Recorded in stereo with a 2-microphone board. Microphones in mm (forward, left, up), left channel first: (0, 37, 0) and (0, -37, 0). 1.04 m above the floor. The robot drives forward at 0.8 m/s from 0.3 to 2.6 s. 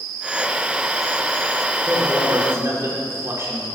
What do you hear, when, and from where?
1.9 s a man speaking: 30° right (ahead or behind), 3.5 m; by 3.6 s 35° right (ahead or behind), 3 m